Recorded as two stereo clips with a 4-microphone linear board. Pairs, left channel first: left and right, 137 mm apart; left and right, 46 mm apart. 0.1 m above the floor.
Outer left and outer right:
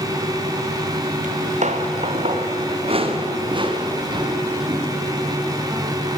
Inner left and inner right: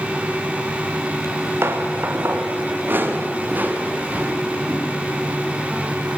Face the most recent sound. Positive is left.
turn(degrees=-25)  # may be behind; listen again after turning